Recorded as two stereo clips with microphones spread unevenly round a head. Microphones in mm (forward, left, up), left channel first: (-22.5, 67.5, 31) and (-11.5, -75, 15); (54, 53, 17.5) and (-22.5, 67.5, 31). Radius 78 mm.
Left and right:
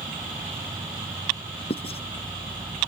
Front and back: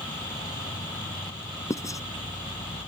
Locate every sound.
0.0 s an insect: 10° right
1.7 s writing: 40° left